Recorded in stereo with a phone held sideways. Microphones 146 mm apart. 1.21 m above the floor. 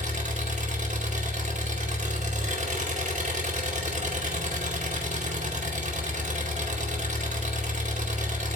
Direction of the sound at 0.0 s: 55° right (ahead or behind).